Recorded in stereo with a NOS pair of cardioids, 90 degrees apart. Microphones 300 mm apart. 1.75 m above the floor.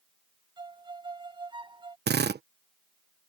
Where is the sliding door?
I don't hear a sliding door.